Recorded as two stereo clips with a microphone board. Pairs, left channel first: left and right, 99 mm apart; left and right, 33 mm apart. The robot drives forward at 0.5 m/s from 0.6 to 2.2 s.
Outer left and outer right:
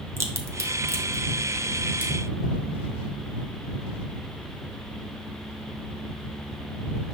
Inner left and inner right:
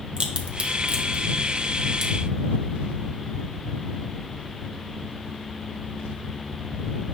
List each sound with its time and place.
0.2 s a crack: 30° right (ahead or behind), 0.6 m; by 2.1 s 15° right (ahead or behind), 1.0 m